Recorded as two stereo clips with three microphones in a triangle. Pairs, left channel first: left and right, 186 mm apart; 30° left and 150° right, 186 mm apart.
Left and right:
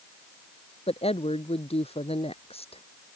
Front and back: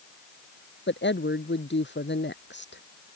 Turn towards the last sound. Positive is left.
turn(degrees=35)